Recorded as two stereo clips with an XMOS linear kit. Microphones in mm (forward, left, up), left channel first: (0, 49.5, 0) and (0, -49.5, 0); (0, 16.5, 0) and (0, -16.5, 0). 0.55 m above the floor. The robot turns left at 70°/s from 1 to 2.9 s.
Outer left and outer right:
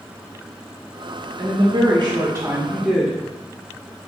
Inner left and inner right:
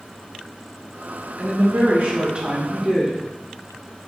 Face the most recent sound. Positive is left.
turn(degrees=180)